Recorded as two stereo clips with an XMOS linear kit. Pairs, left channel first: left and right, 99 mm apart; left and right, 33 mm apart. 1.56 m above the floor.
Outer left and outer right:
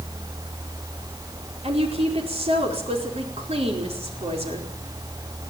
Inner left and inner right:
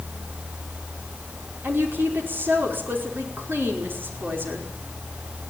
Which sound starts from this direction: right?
A woman speaking, at 1.6 s.